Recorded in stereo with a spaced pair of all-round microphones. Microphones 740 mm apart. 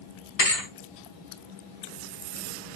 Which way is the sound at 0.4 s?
55° left (ahead or behind).